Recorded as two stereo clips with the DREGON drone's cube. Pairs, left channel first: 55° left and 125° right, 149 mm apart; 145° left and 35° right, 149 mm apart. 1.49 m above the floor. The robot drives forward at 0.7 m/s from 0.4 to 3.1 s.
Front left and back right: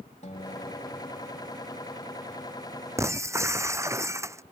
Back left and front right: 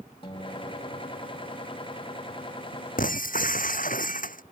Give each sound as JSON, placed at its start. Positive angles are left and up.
{"t": 0.2, "sound": "a guitar", "azimuth_deg": 95}
{"t": 3.0, "sound": "breaking glass", "azimuth_deg": 165}